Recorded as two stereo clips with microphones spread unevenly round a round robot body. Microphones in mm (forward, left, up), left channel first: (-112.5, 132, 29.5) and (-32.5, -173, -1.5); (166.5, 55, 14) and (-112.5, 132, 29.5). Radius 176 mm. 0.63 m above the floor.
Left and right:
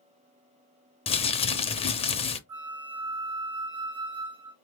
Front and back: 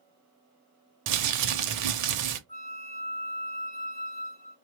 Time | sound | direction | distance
1.1 | crumpling | 175° left | 0.6 m
2.5 | a flute | 90° right | 1.9 m